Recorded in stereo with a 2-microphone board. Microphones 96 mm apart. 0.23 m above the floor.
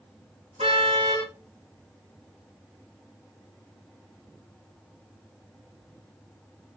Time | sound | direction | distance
0.6 | a car horn | 85° right | 8 m